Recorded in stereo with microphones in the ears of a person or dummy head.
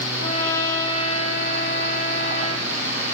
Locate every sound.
0.2 s a trumpet: 70° left (ahead or behind), 3 m